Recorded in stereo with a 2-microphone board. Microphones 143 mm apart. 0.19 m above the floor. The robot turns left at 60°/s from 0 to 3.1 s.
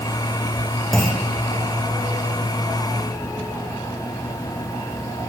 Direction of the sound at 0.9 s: 5° left (ahead or behind).